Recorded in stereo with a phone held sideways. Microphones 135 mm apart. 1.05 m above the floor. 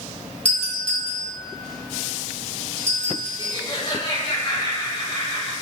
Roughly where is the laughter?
Left.